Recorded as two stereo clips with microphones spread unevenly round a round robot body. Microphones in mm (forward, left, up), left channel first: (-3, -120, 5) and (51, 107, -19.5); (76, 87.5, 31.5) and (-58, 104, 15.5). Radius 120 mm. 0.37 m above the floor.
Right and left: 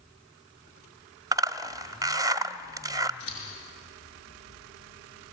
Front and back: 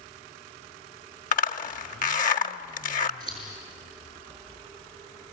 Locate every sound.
1.3 s a zipper: 5° left, 0.9 m
3.2 s scissors: 130° right, 7 m